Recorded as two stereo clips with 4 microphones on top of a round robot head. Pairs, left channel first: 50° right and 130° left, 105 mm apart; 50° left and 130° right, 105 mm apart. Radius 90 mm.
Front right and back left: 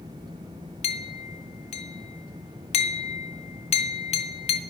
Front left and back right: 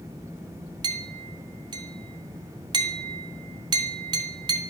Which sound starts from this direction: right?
A clink, at 0.8 s.